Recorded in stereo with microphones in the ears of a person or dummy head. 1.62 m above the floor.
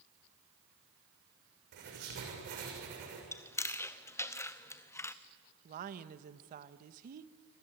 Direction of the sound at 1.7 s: 60° right (ahead or behind).